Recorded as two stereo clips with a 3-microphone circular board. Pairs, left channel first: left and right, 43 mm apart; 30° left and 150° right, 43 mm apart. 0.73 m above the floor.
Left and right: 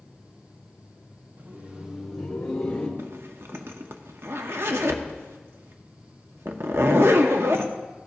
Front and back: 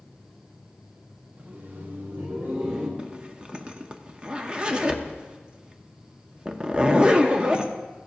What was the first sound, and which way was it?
Laughter, 105° right.